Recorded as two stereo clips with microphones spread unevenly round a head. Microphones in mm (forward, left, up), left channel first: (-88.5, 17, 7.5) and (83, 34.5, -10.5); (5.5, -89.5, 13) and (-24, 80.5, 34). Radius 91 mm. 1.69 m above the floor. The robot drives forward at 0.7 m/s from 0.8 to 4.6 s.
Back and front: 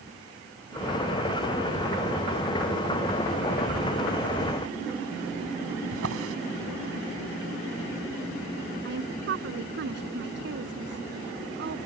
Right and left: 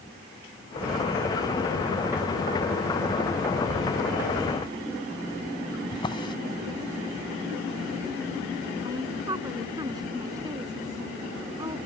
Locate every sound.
5.9 s a drawer: 10° right
8.8 s a woman speaking: 30° left